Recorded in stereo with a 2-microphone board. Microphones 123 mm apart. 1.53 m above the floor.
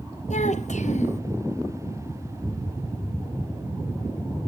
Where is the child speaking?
70° left (ahead or behind), 1.3 m.